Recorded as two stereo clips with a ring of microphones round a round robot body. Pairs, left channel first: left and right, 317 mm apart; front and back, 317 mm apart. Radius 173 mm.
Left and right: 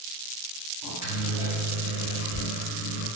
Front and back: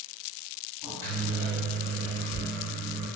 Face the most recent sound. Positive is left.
turn(degrees=80)